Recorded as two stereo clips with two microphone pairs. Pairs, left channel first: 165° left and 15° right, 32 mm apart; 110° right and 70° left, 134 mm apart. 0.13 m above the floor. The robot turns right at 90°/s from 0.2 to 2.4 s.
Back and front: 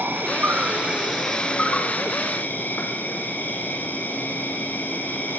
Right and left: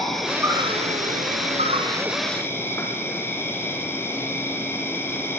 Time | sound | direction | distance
0.0 | an insect | 20° right | 4 m